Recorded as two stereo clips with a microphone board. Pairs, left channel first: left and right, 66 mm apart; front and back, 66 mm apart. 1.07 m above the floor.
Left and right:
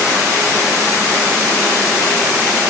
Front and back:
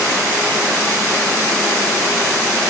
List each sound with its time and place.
Only background noise.